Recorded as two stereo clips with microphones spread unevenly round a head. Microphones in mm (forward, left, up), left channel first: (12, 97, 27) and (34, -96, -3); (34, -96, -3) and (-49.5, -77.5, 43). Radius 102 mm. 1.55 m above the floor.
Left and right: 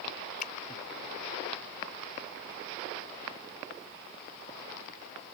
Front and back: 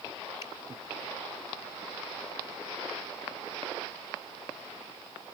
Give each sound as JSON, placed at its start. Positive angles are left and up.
{"t": 0.4, "sound": "a finger snap", "azimuth_deg": 50}